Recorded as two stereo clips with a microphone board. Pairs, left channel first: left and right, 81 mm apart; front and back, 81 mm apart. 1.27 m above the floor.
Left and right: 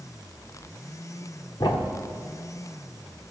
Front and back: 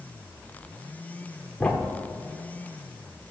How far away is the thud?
About 1.6 m.